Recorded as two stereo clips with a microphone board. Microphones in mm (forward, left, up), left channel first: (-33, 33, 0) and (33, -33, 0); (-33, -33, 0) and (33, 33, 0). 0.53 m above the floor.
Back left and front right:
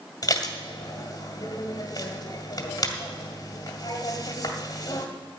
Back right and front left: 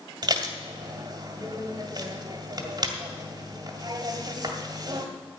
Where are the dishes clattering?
85° left, 1.9 m.